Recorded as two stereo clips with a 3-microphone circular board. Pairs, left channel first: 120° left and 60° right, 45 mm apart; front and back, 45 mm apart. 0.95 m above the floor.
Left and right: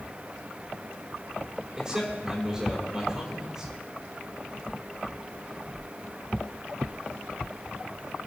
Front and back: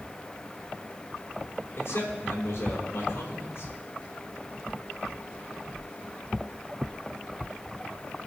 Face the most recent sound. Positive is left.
turn(degrees=15)